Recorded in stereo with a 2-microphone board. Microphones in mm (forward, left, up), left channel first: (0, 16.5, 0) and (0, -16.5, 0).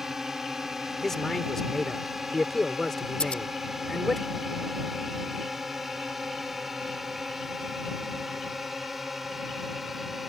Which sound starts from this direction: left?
Scissors, at 3.2 s.